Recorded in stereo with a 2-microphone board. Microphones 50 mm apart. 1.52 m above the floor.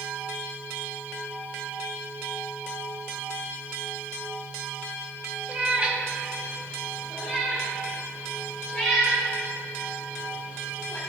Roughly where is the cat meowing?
Right.